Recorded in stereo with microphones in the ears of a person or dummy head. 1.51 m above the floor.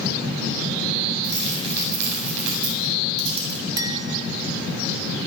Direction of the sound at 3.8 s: 20° right (ahead or behind).